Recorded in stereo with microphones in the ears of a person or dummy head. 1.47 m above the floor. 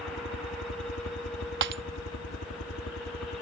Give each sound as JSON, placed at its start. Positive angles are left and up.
{"t": 0.0, "sound": "a helicopter", "side_deg": 70}
{"t": 1.6, "sound": "breaking glass", "side_deg": -60}